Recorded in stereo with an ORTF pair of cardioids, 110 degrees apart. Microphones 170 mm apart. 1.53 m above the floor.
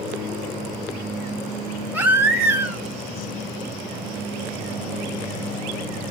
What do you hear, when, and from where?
1.9 s a baby crying: 10° right, 1.4 m